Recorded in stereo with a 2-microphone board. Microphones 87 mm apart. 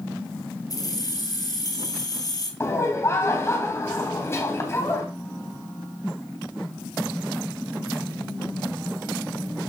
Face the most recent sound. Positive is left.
turn(degrees=30)  # may be behind; listen again after turning